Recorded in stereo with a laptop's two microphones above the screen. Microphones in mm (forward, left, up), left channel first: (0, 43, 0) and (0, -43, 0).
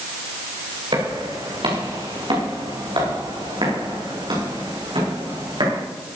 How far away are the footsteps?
About 5.5 m.